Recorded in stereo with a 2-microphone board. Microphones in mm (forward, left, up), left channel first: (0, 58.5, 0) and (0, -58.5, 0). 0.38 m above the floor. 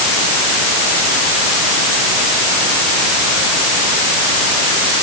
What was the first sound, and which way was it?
Only background noise.